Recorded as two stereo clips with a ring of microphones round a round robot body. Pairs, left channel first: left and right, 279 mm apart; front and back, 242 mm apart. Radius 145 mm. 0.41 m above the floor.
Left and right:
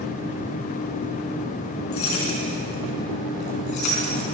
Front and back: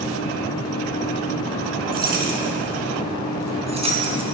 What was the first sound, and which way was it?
Keys jangling, 130° left.